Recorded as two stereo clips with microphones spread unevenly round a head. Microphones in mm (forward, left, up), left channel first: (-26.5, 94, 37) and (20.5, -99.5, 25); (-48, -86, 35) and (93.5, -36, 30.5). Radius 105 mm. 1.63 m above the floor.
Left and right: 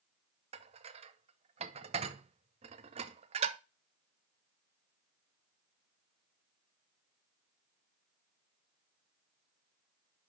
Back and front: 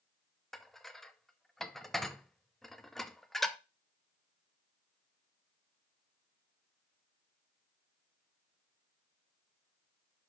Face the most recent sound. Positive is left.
turn(degrees=-80)